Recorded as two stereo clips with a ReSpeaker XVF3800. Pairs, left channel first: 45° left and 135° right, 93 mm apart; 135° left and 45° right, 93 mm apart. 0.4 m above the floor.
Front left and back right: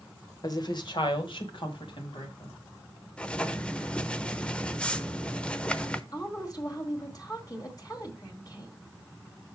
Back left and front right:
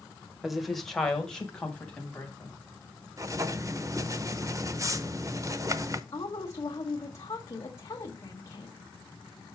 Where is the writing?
25° right, 0.6 m.